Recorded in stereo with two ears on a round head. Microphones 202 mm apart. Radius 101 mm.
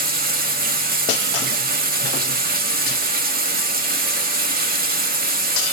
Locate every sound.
0.0 s running water: 40° right (ahead or behind), 1.1 m